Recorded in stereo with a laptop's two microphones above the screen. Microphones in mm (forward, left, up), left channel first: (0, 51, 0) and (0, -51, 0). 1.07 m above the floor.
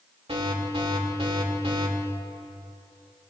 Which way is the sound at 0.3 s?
75° right (ahead or behind).